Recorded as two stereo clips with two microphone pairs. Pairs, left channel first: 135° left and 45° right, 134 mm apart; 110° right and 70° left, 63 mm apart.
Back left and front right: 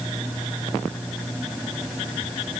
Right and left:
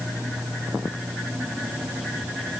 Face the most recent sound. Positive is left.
No sound to turn to.